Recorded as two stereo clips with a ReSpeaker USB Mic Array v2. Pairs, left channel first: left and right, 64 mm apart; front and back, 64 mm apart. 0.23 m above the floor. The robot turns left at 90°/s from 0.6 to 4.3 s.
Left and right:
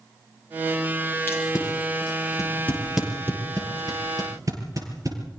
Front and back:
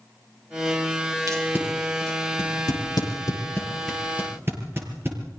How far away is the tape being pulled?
About 6 m.